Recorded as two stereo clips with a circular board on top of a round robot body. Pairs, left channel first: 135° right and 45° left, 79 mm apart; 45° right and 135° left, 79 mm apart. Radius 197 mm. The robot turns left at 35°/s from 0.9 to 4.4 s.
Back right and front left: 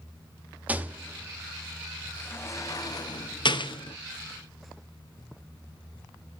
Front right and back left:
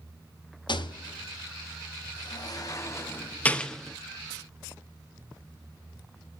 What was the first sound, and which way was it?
A rattle, 25° right.